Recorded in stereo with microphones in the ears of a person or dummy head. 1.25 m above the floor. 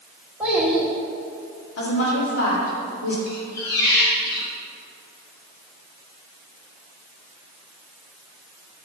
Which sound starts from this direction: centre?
A child speaking, at 0.4 s.